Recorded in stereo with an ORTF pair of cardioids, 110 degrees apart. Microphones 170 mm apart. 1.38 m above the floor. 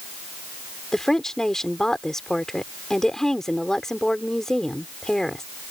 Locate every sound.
0.9 s a woman speaking: straight ahead